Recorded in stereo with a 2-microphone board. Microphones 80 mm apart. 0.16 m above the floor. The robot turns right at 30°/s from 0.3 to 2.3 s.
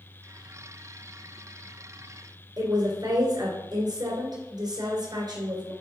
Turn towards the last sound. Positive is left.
turn(degrees=-60)  # may be behind; listen again after turning